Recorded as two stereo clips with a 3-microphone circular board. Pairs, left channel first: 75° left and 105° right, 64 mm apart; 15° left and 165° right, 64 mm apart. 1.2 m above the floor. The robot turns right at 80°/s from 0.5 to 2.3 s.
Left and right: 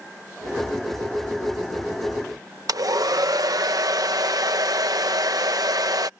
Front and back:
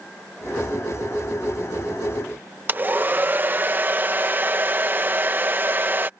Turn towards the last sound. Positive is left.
turn(degrees=-110)